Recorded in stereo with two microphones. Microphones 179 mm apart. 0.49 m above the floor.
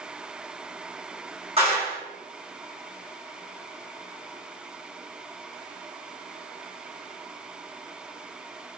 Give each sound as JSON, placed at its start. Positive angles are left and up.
{"t": 1.6, "sound": "a clap", "side_deg": -35, "distance_m": 1.4}